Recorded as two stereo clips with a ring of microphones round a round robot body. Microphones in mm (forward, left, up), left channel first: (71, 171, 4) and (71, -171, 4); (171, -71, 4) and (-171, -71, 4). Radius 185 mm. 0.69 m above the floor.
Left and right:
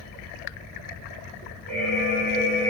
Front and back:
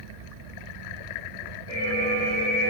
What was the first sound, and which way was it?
An alarm, 5° left.